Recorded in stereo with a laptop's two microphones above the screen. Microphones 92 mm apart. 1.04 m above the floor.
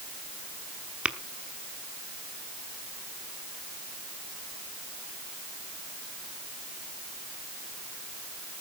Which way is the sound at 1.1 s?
15° right (ahead or behind).